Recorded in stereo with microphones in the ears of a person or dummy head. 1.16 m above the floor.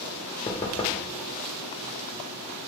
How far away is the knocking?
About 0.5 m.